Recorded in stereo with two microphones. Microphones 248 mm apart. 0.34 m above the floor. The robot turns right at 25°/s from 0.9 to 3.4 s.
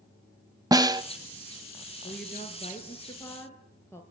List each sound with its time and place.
0.7 s a snare drum: 15° right (ahead or behind), 0.9 m; by 1.0 s 20° right (ahead or behind), 0.9 m
2.0 s a woman speaking: 135° left, 5.5 m; by 4.0 s 170° left, 5.5 m